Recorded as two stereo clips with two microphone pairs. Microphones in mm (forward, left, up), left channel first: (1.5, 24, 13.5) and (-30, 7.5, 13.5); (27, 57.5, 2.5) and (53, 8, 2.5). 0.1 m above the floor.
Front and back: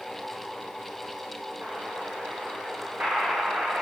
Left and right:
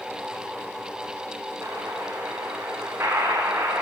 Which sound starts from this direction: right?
An explosion, at 1.6 s.